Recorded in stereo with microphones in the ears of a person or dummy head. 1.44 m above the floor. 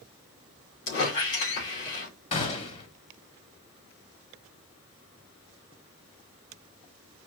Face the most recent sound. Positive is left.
turn(degrees=35)  # may be behind; listen again after turning